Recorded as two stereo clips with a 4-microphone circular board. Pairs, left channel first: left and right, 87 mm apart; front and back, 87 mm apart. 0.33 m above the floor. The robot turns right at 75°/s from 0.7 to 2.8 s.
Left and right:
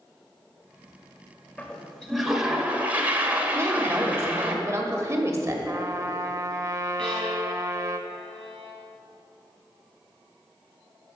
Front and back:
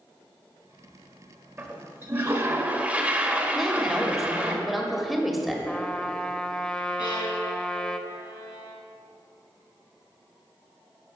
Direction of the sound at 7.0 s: 10° left.